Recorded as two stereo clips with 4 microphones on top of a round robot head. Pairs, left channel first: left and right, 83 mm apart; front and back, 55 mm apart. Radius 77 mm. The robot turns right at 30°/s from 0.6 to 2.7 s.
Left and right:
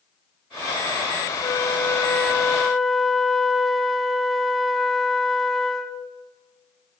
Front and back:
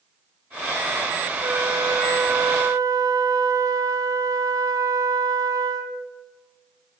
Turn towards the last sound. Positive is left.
turn(degrees=180)